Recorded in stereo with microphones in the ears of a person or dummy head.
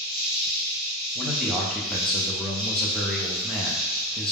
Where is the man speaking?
5° left (ahead or behind), 0.5 m.